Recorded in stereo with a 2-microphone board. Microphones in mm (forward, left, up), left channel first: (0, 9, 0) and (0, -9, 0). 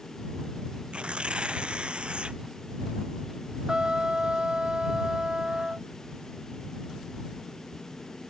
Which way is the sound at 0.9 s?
80° right.